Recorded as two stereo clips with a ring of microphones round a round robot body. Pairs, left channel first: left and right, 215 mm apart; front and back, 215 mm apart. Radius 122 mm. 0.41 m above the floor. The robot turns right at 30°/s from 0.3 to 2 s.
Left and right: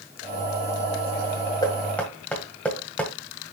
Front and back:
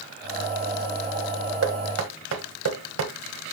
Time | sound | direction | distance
1.6 | knocking | 165° left | 1.7 m